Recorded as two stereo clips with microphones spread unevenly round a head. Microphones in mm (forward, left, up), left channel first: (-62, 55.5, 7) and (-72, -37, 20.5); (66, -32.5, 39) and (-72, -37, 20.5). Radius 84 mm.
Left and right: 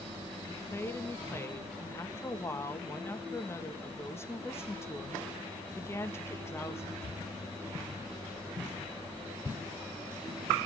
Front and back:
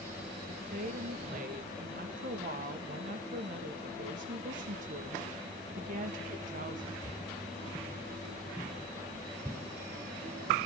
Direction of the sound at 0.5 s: 145° left.